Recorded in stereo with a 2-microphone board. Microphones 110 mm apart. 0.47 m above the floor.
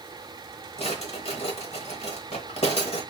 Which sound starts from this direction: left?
A drawer, at 0.8 s.